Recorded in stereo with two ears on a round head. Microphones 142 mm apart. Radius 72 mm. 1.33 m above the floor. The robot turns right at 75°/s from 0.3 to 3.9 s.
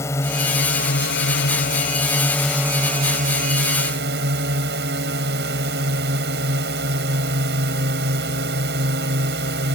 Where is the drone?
20° left; by 9.8 s 70° right.